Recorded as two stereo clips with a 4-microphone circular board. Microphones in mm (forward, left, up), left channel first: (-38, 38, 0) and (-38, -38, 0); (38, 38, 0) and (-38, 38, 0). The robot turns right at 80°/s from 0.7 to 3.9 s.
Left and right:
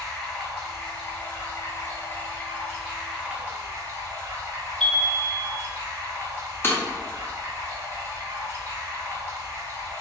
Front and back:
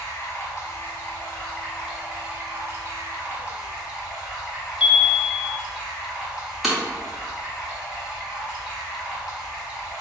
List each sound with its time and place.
0.0 s running water: straight ahead, 1.1 m; by 10.0 s 105° right, 1.1 m
4.8 s a chime: straight ahead, 0.6 m
6.6 s breaking glass: 95° left, 0.6 m